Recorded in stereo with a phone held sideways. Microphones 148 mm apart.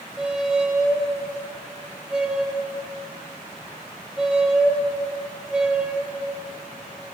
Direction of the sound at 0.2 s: 5° right (ahead or behind).